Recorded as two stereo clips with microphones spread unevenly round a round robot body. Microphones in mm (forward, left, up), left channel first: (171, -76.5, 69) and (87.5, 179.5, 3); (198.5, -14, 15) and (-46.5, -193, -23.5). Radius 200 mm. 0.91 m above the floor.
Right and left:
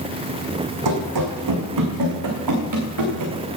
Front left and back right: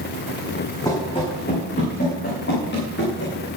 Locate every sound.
0.8 s running footsteps: 115° left, 2.5 m; by 3.4 s 95° left, 4.5 m